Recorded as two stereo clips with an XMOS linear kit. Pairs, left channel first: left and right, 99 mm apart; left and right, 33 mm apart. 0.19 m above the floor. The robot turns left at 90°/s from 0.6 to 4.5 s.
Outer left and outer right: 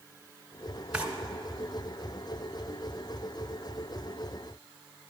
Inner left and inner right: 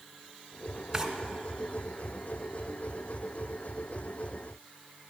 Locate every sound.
0.9 s a drawer: 15° right (ahead or behind), 1.5 m; by 1.1 s 20° right (ahead or behind), 1.5 m